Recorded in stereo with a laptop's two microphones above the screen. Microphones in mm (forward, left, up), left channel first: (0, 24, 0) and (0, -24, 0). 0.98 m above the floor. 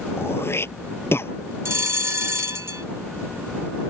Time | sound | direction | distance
0.2 | throat clearing | 55° left (ahead or behind) | ?
1.6 | a bell | 60° right (ahead or behind) | ?